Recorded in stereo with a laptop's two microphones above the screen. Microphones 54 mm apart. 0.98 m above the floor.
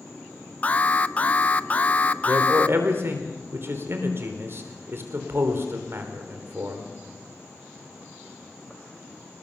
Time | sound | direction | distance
0.6 | an alarm | 30° left (ahead or behind) | 0.8 m
2.3 | a man speaking | 50° right (ahead or behind) | 4 m